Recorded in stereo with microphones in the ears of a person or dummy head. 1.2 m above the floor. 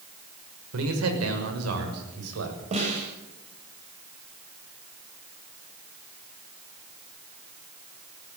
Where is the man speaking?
75° right (ahead or behind), 5.5 m; by 2.6 s 85° right, 7.5 m.